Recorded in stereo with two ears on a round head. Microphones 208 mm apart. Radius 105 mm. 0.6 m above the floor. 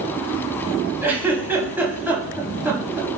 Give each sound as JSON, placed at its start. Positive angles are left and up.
{"t": 1.0, "sound": "a giggle", "side_deg": -10, "distance_m": 0.7}